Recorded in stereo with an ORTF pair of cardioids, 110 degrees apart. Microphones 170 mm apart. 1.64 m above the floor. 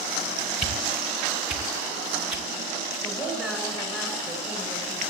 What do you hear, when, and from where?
0.6 s a whoosh: 5° right, 2.5 m
3.0 s a woman speaking: 5° left, 7 m